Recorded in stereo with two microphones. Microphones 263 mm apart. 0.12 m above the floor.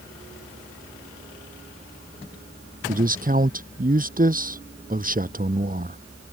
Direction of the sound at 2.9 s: 30° right (ahead or behind).